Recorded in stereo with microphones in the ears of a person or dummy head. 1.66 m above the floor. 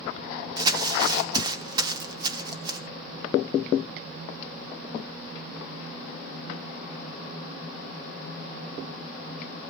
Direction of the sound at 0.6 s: 25° right (ahead or behind).